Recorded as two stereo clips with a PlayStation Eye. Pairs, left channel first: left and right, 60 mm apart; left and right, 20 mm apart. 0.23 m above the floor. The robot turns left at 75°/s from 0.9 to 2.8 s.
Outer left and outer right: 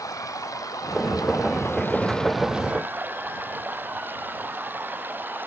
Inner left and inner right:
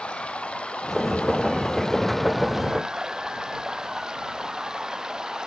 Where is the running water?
110° left; by 5.5 s 35° right.